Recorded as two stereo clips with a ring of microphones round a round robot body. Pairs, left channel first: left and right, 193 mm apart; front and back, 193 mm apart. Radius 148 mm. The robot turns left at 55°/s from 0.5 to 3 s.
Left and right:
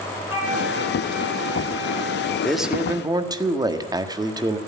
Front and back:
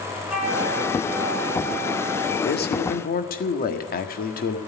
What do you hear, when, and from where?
0.3 s a flute: 95° left, 8.5 m; by 2.3 s 5° right, 8.5 m
2.4 s a man speaking: 5° left, 1.6 m; by 4.6 s 25° right, 1.6 m